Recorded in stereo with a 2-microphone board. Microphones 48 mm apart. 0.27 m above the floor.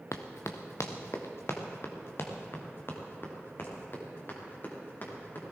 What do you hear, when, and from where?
0.1 s running footsteps: 75° left (ahead or behind), 1.5 m; by 5.4 s 45° left (ahead or behind), 6 m